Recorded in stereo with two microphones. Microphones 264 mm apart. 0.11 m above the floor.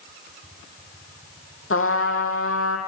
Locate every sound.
1.7 s a trumpet: 55° left (ahead or behind), 3 m